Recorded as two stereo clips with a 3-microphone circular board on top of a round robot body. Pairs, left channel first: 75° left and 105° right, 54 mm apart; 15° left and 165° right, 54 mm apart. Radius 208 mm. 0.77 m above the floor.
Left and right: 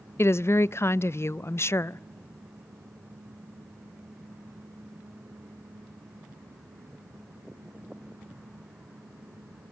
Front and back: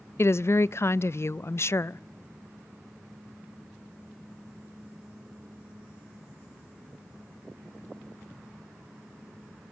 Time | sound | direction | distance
0.2 | a woman speaking | 45° left | 0.5 m